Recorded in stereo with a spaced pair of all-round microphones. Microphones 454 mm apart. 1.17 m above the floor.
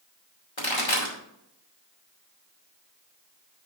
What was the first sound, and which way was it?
A pop, 85° left.